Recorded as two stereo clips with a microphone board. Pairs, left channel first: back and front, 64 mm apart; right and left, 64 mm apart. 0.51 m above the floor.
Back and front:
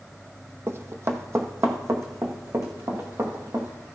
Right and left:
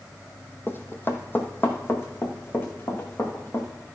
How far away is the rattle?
No rattle in this recording.